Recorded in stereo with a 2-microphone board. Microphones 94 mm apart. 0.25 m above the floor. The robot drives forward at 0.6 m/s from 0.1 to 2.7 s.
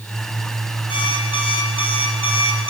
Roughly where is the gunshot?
No gunshot in this recording.